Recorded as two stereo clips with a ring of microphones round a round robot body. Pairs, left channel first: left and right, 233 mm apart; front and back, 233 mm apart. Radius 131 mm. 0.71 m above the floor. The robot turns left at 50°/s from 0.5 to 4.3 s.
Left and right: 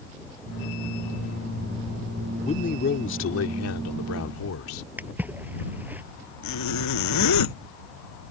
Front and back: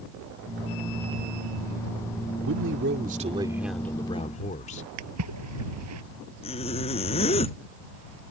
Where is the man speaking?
155° left; by 4.8 s 60° left.